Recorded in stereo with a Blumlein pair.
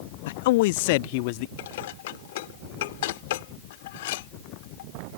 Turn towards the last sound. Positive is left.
turn(degrees=55)